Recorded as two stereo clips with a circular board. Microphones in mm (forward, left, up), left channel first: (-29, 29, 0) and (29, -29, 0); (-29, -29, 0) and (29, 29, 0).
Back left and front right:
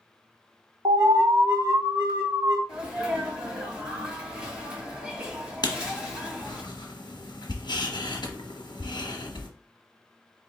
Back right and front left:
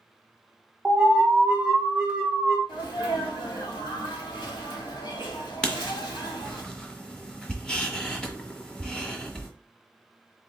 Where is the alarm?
30° right, 1.4 m.